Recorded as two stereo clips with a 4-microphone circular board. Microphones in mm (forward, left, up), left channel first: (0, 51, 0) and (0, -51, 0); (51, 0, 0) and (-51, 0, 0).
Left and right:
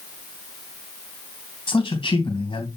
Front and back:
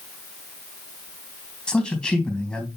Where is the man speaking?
80° left, 3 m.